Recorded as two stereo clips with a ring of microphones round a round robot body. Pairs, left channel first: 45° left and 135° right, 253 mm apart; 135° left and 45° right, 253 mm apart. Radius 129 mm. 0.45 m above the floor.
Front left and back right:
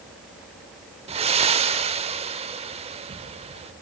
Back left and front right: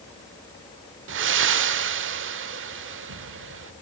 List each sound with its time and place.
1.1 s breathing: 75° right, 1.1 m